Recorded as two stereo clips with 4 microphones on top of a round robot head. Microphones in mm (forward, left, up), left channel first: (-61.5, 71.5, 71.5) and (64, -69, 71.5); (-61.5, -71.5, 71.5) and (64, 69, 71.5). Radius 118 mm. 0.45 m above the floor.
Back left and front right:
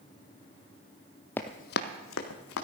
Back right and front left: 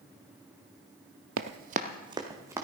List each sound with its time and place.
1.4 s running footsteps: 50° left, 0.6 m; by 2.6 s 125° left, 2.0 m